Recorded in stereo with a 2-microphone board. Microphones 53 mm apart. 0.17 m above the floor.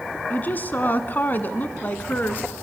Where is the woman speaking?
35° left (ahead or behind), 1.4 m.